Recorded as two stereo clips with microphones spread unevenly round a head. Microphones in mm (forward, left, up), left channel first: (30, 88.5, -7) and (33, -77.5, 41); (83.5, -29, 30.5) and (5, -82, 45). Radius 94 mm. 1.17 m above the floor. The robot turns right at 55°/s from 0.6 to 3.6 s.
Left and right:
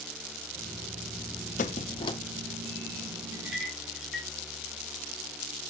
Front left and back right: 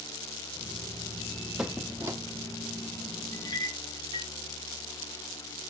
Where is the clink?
20° right, 1.9 m; by 4.3 s 5° right, 1.9 m.